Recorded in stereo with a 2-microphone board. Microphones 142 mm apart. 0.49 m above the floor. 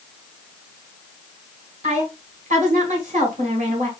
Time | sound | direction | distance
1.8 | a woman speaking | 65° right (ahead or behind) | 1.9 m